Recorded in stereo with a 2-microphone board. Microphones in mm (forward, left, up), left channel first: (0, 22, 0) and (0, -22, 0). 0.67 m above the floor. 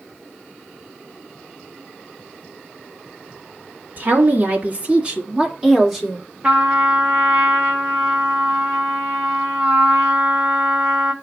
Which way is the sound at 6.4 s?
25° right (ahead or behind).